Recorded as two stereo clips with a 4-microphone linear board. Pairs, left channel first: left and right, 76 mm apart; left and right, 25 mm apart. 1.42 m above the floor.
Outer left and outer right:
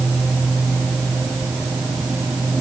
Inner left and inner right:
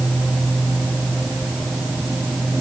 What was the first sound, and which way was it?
Only background noise.